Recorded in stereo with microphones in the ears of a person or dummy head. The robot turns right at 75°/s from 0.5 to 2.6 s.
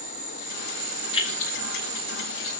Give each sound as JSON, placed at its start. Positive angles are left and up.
{"t": 0.0, "sound": "an insect", "azimuth_deg": -140, "distance_m": 2.5}
{"t": 1.1, "sound": "keys jangling", "side_deg": 30, "distance_m": 4.0}